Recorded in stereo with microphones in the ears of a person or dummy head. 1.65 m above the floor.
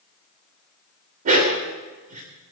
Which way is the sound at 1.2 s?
45° right (ahead or behind).